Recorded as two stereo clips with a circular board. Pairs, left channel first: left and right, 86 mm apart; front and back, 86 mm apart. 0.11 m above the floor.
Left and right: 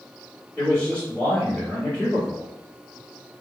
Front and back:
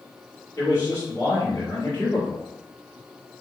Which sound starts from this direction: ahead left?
A man speaking, at 0.6 s.